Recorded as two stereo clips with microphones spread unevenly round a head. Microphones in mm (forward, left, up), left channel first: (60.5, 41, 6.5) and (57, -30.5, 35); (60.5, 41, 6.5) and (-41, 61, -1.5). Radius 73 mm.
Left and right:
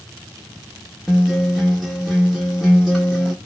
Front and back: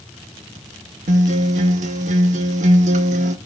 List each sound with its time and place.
1.1 s a guitar: straight behind, 1.3 m